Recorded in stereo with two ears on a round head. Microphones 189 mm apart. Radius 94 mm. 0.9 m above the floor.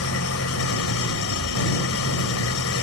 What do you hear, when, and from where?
0.0 s an engine running: 75° left (ahead or behind)